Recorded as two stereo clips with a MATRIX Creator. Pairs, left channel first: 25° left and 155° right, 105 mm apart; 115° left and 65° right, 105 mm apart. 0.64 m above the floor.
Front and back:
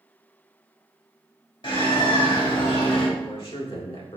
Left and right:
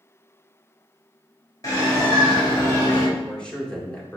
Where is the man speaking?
35° left, 1.7 m.